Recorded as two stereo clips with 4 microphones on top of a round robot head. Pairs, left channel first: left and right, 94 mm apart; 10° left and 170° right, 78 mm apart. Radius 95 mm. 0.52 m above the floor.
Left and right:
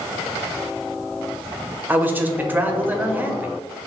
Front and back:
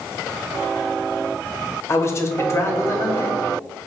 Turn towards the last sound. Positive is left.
turn(degrees=-25)